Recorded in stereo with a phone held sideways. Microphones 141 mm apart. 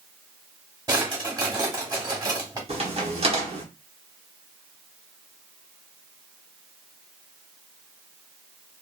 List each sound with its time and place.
0.9 s a drawer: 25° right (ahead or behind), 1.0 m
2.7 s a crack: 45° right (ahead or behind), 0.9 m